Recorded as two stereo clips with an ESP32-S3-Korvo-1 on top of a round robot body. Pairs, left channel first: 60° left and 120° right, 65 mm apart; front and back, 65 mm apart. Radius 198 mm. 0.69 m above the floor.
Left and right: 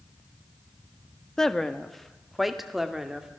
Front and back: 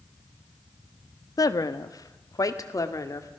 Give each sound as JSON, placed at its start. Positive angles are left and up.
{"t": 1.4, "sound": "a woman speaking", "azimuth_deg": -25, "distance_m": 1.5}